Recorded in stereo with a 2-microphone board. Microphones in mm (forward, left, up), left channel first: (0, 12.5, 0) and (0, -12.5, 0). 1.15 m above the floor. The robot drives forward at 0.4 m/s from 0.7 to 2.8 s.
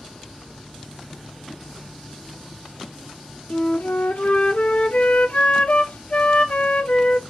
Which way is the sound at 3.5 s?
60° left (ahead or behind).